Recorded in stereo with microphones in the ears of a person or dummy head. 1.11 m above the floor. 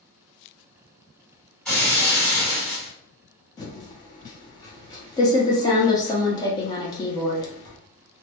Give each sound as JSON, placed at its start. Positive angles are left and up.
{"t": 1.6, "sound": "breaking glass", "side_deg": 5, "distance_m": 1.5}
{"t": 3.6, "sound": "typing on a keyboard", "side_deg": 20, "distance_m": 0.6}